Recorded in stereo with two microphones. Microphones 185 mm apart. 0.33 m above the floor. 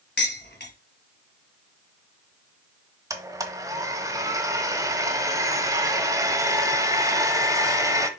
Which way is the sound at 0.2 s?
65° left (ahead or behind).